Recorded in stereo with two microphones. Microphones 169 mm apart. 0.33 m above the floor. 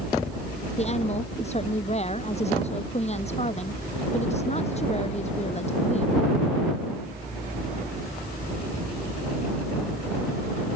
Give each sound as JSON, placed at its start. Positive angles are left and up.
{"t": 0.8, "sound": "a woman speaking", "side_deg": 40}